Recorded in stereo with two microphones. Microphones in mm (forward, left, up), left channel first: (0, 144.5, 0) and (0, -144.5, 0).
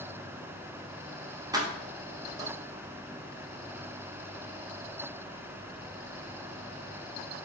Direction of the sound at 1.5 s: 15° right (ahead or behind).